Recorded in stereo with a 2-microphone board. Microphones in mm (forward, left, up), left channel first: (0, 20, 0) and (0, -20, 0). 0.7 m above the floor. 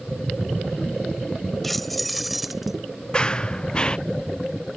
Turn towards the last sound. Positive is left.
turn(degrees=20)  # may be behind; listen again after turning